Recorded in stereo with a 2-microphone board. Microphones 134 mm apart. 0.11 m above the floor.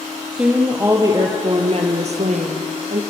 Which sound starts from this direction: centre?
A woman speaking, at 0.3 s.